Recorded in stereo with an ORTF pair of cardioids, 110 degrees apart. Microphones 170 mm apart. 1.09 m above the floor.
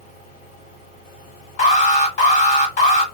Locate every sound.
0.0 s a fan: 55° left, 1.7 m
1.6 s an alarm: 50° left, 1.6 m